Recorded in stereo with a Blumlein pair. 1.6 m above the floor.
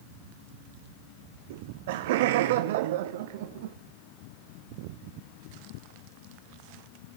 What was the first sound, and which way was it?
Laughter, 55° right.